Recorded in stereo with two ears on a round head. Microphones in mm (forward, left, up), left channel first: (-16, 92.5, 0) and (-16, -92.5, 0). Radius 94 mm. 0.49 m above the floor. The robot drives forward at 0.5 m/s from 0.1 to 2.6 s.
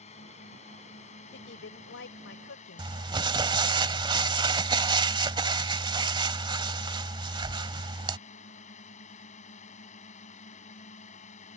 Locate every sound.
0.0 s a drone: 30° left (ahead or behind)
1.3 s a woman speaking: 50° left (ahead or behind); by 3.0 s 60° left (ahead or behind)
2.8 s crumpling: 20° right (ahead or behind)